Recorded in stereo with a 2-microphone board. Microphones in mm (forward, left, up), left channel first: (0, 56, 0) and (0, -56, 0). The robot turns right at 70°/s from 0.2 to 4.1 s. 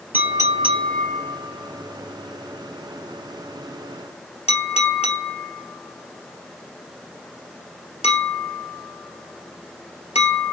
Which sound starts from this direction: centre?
A clink, at 0.1 s.